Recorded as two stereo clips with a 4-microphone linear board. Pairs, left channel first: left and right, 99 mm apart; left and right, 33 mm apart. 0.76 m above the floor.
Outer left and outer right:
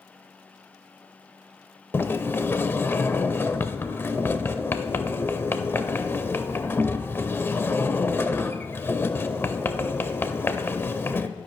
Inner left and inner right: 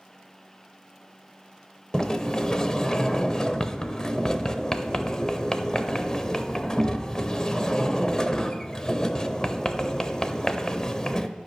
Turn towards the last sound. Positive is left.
turn(degrees=20)  # may be behind; listen again after turning